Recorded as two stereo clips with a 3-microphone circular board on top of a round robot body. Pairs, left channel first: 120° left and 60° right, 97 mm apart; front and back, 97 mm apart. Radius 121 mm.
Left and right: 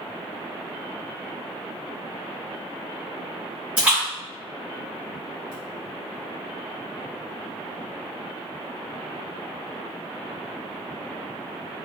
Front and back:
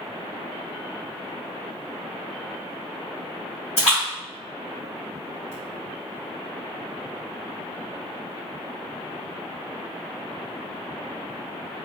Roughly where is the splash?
Ahead.